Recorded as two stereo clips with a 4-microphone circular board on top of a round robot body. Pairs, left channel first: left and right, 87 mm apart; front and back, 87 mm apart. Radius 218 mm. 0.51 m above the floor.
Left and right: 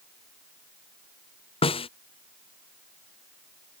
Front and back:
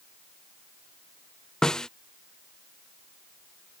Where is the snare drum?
85° left.